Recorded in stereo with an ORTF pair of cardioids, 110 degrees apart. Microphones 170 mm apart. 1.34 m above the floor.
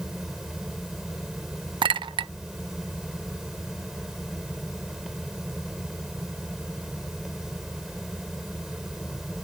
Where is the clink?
30° right.